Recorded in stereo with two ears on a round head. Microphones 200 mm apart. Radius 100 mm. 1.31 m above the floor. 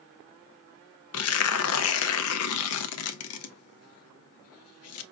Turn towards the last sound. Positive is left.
turn(degrees=70)  # may be behind; listen again after turning